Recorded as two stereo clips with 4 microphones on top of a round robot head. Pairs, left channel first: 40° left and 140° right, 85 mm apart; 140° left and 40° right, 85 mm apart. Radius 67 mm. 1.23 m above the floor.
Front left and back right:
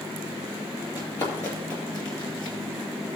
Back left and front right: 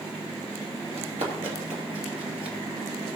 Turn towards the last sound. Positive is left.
turn(degrees=-5)